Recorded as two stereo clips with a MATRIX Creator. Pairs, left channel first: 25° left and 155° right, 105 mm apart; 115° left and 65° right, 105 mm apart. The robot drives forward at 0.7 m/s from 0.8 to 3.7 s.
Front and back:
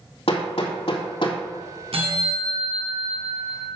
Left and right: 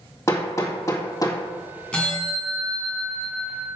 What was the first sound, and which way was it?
Hammering, 50° left.